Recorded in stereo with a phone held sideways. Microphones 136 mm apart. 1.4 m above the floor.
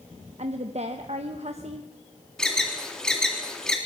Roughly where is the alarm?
Centre.